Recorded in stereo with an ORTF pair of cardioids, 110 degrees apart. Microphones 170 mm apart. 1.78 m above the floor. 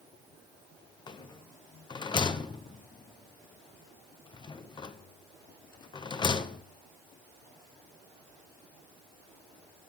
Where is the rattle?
25° left, 1.0 m.